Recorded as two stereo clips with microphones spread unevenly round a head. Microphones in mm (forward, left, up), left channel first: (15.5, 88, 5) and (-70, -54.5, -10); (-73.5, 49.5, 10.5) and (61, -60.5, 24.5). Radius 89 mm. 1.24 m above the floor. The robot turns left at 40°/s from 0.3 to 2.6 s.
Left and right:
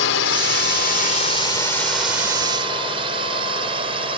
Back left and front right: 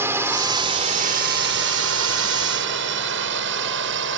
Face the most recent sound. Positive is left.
turn(degrees=-55)